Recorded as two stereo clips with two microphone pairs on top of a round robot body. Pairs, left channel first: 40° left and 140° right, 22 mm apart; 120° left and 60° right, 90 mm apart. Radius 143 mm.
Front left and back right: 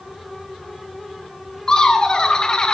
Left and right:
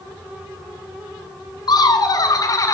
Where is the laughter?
85° left, 1.7 m; by 2.8 s 75° left, 1.1 m.